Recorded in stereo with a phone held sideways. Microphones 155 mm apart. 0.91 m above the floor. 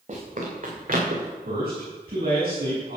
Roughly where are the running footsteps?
Right.